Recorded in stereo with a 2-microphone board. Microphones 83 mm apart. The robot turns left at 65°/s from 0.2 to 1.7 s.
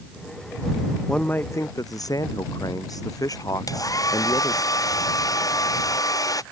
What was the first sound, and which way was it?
A man speaking, 175° left.